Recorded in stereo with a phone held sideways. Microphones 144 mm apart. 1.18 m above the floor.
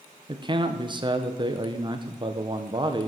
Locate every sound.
0.3 s a man speaking: 30° right (ahead or behind), 0.8 m